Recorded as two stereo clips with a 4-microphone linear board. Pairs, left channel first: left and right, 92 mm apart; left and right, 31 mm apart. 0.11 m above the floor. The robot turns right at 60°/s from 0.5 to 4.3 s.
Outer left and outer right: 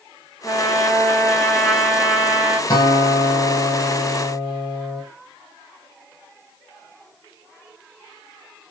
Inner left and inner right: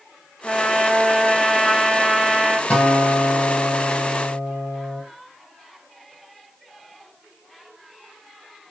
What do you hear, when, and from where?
0.4 s a trumpet: 105° left, 1.9 m; by 2.6 s 125° right, 1.9 m
2.7 s a guitar: 45° left, 1.0 m; by 5.0 s 140° left, 1.0 m